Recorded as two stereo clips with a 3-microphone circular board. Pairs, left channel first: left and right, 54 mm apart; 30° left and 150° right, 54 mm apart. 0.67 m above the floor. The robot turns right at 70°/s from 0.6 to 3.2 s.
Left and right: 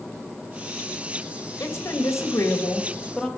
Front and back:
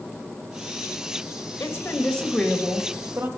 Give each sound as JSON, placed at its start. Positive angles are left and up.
{"t": 1.6, "sound": "a woman speaking", "azimuth_deg": 65, "distance_m": 2.5}